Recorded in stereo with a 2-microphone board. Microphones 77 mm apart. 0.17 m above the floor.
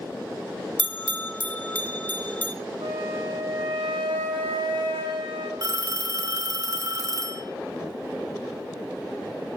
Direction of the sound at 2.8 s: 85° right.